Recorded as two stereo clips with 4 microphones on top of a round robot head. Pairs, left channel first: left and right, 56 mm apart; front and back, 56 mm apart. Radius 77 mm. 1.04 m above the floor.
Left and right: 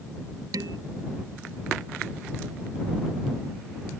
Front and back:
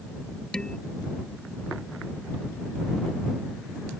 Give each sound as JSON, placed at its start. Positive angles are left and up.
{"t": 0.5, "sound": "dishes clattering", "azimuth_deg": -80}